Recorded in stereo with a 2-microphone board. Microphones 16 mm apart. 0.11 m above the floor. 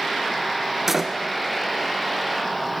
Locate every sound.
0.9 s a door slam: 15° right (ahead or behind), 1.4 m